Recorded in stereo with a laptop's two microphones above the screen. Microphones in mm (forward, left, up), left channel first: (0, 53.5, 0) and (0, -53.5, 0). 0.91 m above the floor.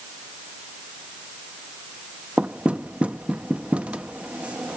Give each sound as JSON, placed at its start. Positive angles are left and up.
{"t": 2.4, "sound": "knocking", "side_deg": -10}